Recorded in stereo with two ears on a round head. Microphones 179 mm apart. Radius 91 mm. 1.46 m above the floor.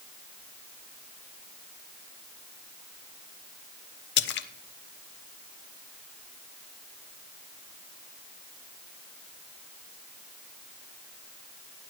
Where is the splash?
60° left (ahead or behind), 0.9 m.